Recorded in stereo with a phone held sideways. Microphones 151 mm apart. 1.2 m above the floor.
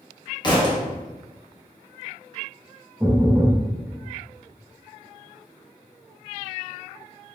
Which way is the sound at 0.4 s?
30° left (ahead or behind).